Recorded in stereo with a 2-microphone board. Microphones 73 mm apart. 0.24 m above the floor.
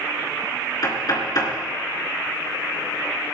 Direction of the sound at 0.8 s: 60° left (ahead or behind).